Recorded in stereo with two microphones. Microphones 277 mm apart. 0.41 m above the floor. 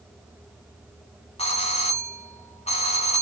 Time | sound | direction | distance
1.4 | a doorbell | 20° left (ahead or behind) | 1.6 m